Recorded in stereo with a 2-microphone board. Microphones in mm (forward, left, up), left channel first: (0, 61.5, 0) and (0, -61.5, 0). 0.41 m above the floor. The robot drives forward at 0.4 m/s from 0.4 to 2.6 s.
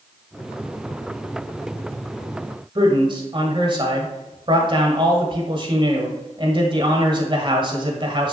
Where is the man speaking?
40° right (ahead or behind), 1.6 m.